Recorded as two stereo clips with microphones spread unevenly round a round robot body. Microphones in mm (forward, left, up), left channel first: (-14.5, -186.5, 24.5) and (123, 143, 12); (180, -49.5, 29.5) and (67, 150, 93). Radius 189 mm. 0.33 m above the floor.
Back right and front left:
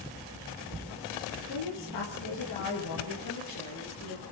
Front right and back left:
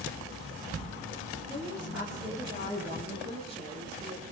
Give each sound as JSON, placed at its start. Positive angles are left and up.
{"t": 1.5, "sound": "a woman speaking", "azimuth_deg": -150, "distance_m": 7.5}